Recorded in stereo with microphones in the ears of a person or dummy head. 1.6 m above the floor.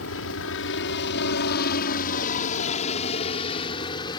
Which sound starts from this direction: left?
A helicopter, at 0.0 s.